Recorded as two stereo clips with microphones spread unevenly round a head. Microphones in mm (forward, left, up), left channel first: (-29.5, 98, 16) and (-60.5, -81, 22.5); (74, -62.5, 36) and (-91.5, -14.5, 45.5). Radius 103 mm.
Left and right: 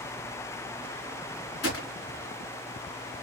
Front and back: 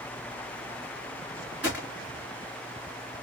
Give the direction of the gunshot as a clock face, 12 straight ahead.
9 o'clock.